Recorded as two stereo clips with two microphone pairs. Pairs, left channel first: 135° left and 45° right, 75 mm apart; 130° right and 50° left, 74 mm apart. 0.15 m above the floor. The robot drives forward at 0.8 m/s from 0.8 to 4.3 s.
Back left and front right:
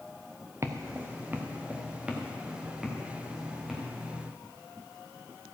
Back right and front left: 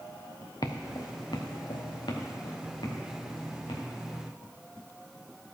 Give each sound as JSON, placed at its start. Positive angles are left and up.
{"t": 0.6, "sound": "footsteps", "azimuth_deg": -100, "distance_m": 1.1}